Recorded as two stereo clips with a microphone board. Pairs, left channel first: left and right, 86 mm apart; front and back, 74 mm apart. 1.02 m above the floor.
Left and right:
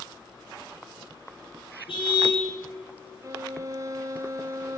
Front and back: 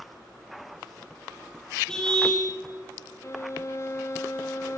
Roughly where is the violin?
Ahead right.